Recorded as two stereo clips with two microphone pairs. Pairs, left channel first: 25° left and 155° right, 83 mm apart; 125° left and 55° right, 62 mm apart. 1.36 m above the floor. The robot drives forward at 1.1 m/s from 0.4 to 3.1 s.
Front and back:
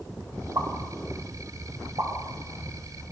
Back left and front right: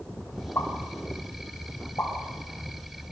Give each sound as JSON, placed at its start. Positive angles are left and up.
{"t": 0.6, "sound": "a pop", "azimuth_deg": 165, "distance_m": 6.5}